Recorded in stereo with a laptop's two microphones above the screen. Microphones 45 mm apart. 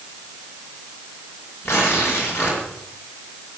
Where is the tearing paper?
65° left (ahead or behind), 5 m.